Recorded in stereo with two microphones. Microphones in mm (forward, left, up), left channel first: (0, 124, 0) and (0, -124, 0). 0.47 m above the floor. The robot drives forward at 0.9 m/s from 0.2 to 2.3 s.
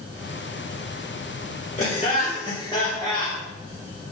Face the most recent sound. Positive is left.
turn(degrees=20)  # may be behind; listen again after turning